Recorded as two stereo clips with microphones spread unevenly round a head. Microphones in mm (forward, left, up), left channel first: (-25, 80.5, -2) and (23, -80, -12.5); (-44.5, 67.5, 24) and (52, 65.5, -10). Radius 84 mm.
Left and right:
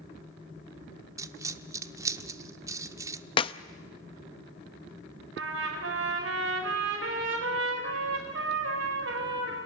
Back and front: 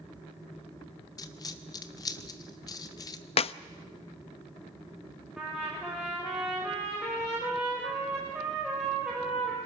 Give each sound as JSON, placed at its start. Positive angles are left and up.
{"t": 1.2, "sound": "a dropped coin", "azimuth_deg": -145, "distance_m": 0.8}
{"t": 3.4, "sound": "a clap", "azimuth_deg": 170, "distance_m": 0.6}
{"t": 5.4, "sound": "a trumpet", "azimuth_deg": -90, "distance_m": 4.5}